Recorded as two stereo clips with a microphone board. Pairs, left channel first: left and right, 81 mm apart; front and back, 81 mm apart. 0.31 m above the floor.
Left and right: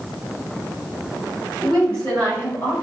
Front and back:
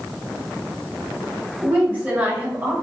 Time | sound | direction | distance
1.6 | a woman speaking | 160° left | 1.4 m